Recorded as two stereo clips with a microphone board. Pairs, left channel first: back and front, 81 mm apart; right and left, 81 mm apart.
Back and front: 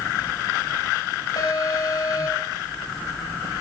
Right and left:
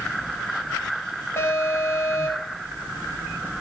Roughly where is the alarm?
Behind right.